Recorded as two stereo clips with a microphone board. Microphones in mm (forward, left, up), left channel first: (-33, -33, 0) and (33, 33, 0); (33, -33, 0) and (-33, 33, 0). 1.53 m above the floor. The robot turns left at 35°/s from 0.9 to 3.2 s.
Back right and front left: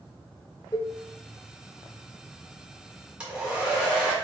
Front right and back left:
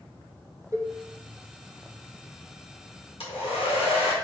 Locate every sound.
0.7 s a cowbell: straight behind, 0.7 m
3.2 s a hair dryer: 35° right, 1.6 m